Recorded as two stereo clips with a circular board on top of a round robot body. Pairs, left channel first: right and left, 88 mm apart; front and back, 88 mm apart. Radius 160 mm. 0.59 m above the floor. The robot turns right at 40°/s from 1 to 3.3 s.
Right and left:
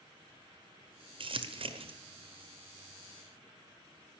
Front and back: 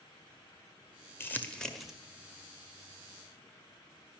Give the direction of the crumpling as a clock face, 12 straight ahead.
10 o'clock.